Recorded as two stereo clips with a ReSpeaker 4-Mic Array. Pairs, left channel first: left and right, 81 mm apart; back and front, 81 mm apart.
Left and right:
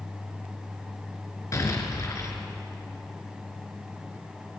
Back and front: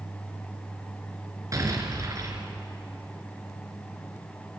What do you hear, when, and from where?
1.5 s an explosion: 45° left, 3.5 m